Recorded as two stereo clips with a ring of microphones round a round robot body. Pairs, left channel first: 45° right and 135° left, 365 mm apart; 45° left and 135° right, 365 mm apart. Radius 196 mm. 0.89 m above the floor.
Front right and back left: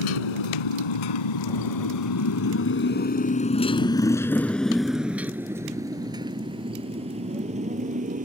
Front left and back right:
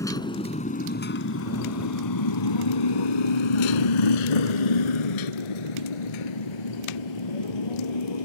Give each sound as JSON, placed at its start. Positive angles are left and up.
{"t": 0.0, "sound": "a motorcycle", "azimuth_deg": -40}